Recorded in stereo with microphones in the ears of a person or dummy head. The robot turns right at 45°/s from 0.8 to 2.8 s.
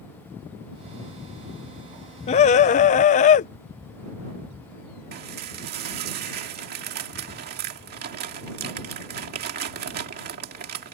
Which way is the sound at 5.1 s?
50° right (ahead or behind).